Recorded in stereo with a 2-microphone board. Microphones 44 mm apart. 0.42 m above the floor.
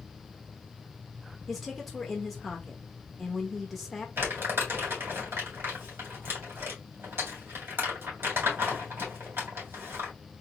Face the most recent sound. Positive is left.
turn(degrees=-60)  # may be behind; listen again after turning